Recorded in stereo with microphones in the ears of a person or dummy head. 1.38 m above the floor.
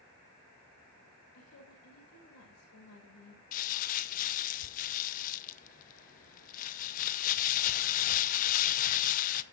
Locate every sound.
1.3 s a woman speaking: 80° left, 6.5 m
3.5 s crumpling: 40° left (ahead or behind), 0.7 m